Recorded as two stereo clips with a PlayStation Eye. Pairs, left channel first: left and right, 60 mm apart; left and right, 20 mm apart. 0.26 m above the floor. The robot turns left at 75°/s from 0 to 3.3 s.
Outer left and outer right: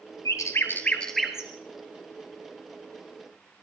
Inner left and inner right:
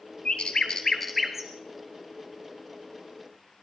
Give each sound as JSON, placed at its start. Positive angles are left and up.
{"t": 0.2, "sound": "a bird", "side_deg": 70, "distance_m": 1.8}